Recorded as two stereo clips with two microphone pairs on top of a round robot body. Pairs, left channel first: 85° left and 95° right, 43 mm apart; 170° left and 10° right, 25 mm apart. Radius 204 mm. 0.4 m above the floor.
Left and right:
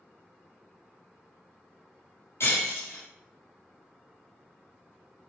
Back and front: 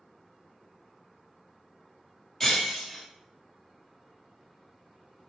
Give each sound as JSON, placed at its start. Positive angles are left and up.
{"t": 2.4, "sound": "breaking glass", "azimuth_deg": 105, "distance_m": 2.0}